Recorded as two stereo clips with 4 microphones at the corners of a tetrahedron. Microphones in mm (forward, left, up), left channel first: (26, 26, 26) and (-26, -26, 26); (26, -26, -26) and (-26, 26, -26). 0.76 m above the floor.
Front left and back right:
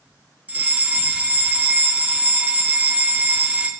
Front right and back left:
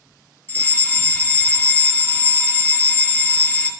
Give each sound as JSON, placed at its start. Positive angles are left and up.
{"t": 0.5, "sound": "a fire alarm", "azimuth_deg": -80, "distance_m": 1.8}